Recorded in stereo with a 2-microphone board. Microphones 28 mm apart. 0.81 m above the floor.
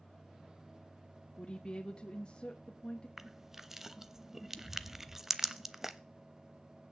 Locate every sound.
1.4 s a woman speaking: 30° left (ahead or behind), 0.9 m
3.2 s crushing: 15° right (ahead or behind), 0.6 m